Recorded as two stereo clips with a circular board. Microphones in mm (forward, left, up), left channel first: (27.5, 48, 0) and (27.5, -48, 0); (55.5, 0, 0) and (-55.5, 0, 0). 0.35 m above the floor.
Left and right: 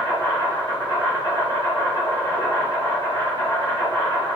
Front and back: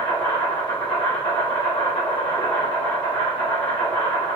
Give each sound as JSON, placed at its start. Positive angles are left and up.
{"t": 0.0, "sound": "an insect", "azimuth_deg": 35, "distance_m": 1.5}